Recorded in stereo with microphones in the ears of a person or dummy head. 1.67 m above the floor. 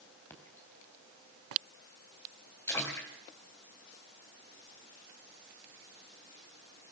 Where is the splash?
20° left (ahead or behind), 4 m.